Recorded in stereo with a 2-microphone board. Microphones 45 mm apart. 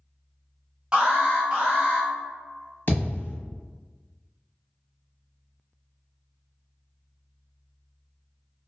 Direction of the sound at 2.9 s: 50° left (ahead or behind).